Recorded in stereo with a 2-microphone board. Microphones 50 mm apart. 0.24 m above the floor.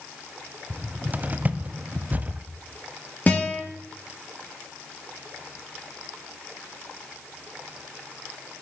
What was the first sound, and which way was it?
A cupboard door, 30° right (ahead or behind).